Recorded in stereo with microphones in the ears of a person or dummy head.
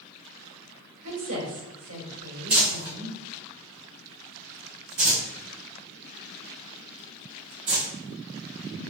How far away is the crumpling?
About 1.5 m.